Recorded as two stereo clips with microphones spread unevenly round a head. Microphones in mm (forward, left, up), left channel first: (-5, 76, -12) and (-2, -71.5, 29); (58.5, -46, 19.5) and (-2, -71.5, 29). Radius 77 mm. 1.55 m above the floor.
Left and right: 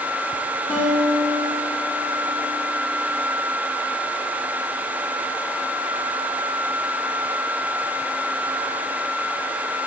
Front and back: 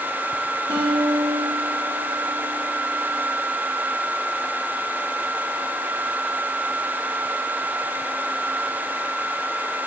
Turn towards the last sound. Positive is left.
turn(degrees=170)